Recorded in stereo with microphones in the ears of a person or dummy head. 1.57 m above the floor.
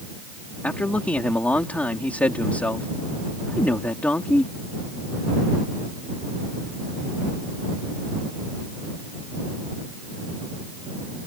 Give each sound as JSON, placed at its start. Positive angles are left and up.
{"t": 0.6, "sound": "a man speaking", "side_deg": 10}